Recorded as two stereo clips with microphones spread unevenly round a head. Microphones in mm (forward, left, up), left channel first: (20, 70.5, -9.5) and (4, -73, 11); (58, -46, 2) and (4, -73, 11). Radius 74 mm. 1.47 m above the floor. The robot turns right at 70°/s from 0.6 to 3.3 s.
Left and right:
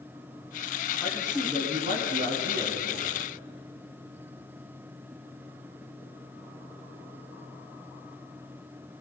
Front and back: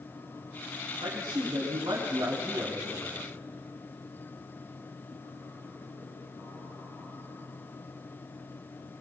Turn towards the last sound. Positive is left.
turn(degrees=-40)